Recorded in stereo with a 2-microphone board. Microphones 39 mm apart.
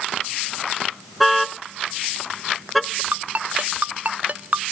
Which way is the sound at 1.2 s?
Centre (ahead or behind).